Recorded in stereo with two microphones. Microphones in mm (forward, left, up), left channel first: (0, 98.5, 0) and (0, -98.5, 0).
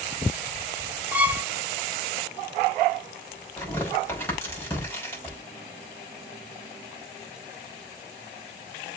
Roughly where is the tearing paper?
Centre.